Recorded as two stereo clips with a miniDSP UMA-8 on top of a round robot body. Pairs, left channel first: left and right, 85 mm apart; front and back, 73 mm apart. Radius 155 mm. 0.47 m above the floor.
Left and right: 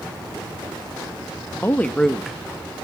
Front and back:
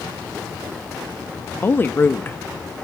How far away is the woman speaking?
About 1.1 m.